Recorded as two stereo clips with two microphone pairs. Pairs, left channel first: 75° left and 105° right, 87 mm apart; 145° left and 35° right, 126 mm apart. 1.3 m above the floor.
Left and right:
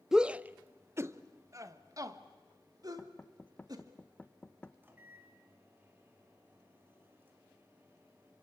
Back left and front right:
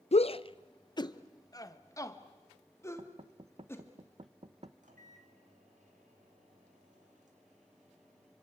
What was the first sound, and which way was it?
A shout, 170° left.